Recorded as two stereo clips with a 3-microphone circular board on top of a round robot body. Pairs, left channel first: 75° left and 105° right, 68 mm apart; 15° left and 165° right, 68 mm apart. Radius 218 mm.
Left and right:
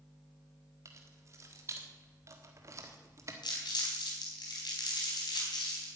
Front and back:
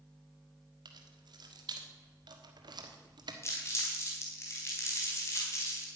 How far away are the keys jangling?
About 1.5 m.